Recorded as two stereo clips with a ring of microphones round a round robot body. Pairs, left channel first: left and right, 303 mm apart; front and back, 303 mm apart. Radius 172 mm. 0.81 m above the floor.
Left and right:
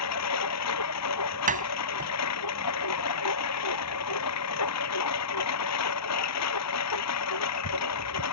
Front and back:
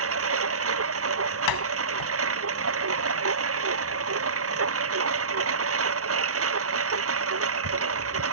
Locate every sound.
0.0 s a lawn mower: 135° left
1.5 s a door slam: 25° right